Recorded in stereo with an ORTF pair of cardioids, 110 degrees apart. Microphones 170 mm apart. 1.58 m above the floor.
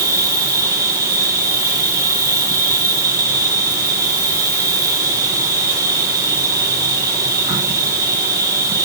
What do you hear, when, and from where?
0.0 s an insect: 20° right, 8 m